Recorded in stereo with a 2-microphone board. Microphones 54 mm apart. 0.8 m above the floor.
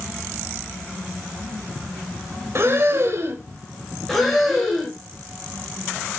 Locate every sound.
2.5 s breathing: 55° right (ahead or behind), 1.1 m
4.1 s breathing: 5° left (ahead or behind), 4 m